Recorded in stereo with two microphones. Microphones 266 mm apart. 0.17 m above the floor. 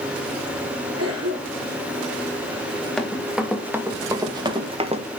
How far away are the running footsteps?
About 3 m.